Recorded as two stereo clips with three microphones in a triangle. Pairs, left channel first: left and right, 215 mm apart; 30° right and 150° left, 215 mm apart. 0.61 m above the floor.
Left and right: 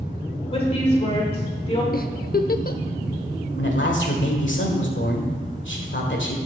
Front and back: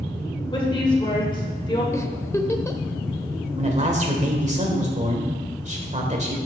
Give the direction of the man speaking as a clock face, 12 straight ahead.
9 o'clock.